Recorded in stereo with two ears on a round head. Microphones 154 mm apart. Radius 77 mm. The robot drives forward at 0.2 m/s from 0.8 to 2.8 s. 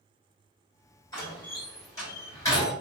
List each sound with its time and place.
1.1 s a door slam: 20° left (ahead or behind), 1.8 m